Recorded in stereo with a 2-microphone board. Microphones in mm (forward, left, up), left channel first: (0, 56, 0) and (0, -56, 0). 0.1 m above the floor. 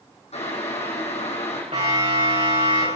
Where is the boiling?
75° left (ahead or behind), 4.5 m.